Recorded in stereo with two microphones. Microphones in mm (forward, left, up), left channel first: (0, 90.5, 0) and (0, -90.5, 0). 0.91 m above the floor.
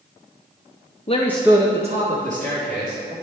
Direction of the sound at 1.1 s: 40° left (ahead or behind).